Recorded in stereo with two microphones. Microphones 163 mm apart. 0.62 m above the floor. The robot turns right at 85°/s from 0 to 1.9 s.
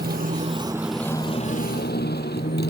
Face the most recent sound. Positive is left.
turn(degrees=80)